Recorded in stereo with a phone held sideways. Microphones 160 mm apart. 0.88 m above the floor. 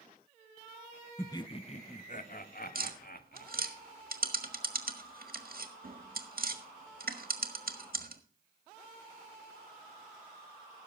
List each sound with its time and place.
1.2 s laughter: 15° left (ahead or behind), 0.6 m; by 3.8 s 65° left (ahead or behind), 2 m
2.8 s tapping: 65° right (ahead or behind), 1.5 m